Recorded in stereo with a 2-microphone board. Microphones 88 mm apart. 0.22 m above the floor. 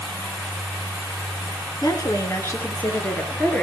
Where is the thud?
I don't hear a thud.